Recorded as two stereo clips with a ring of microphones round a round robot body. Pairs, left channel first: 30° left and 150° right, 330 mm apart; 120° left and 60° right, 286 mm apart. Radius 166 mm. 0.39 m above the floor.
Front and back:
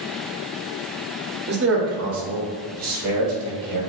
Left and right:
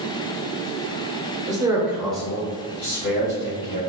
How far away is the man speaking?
About 1.0 m.